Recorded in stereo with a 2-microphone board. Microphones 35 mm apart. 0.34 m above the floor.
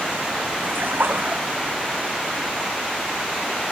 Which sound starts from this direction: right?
A splash, at 0.6 s.